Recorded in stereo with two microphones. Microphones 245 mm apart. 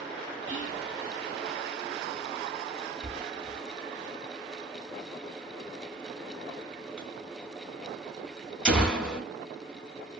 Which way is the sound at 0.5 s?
30° left (ahead or behind).